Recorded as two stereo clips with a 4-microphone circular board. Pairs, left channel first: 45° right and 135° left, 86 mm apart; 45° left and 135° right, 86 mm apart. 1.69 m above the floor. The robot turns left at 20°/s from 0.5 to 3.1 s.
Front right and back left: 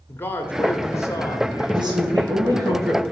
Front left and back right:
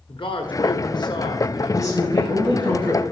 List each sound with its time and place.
0.1 s a man speaking: 20° left, 1.1 m; by 2.7 s 25° right, 1.1 m
1.7 s a woman speaking: 100° left, 1.6 m; by 3.0 s 75° left, 1.6 m